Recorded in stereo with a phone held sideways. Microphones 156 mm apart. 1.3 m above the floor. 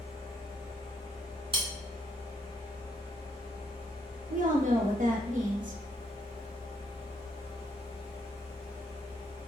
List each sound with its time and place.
0.0 s a fan: 40° left (ahead or behind), 1.4 m
1.5 s cutlery clinking: 35° right (ahead or behind), 0.7 m
4.3 s a woman speaking: 55° right (ahead or behind), 0.8 m